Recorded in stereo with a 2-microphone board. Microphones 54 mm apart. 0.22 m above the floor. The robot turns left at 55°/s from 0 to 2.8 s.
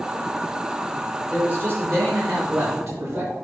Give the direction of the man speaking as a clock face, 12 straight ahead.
1 o'clock.